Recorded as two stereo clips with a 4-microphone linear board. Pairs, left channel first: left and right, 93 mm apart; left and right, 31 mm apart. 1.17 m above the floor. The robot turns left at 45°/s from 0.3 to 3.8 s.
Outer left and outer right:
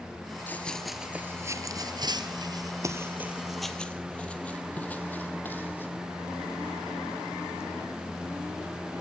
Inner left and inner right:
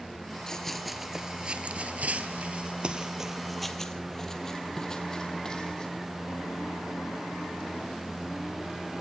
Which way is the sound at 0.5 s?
20° left (ahead or behind).